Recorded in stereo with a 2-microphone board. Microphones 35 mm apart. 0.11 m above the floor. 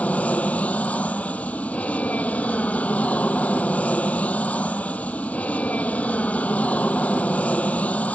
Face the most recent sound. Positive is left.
turn(degrees=45)  # may be behind; listen again after turning